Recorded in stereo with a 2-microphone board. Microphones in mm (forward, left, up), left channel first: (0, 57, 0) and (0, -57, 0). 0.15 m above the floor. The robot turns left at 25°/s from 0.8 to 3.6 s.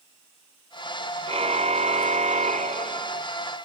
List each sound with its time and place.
1.3 s a car horn: 60° right; by 3.2 s 110° right